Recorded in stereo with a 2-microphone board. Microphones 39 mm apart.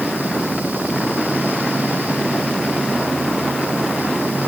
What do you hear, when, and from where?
Only background noise.